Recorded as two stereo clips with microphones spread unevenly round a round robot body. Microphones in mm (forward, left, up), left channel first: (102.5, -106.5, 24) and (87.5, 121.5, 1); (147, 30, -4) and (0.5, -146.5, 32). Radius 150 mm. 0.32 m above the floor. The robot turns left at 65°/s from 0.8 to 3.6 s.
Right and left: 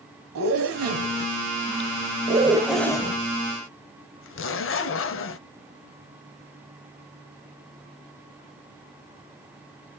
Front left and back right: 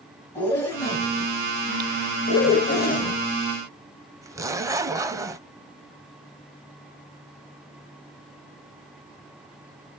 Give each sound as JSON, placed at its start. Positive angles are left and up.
{"t": 0.3, "sound": "a zipper", "azimuth_deg": 130, "distance_m": 0.6}